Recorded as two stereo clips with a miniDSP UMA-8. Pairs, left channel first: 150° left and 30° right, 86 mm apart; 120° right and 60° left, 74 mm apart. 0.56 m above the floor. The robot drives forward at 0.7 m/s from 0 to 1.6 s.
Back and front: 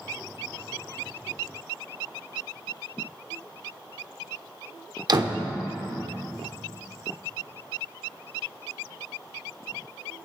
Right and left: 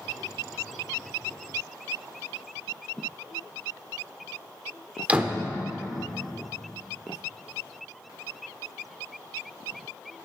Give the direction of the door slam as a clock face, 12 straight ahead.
12 o'clock.